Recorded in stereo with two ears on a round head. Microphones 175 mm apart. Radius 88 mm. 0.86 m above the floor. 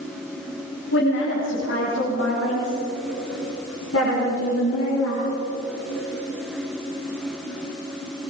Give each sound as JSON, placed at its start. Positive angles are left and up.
{"t": 0.9, "sound": "a woman speaking", "side_deg": 70, "distance_m": 6.0}